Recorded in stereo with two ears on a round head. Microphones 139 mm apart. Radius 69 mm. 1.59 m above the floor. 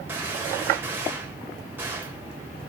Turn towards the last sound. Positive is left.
turn(degrees=-15)  # may be behind; listen again after turning